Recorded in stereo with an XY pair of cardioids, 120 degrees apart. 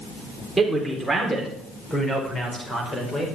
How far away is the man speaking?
About 4 m.